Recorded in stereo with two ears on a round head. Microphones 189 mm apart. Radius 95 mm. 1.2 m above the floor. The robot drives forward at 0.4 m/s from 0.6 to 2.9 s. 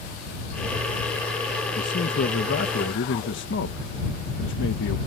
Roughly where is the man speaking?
Left.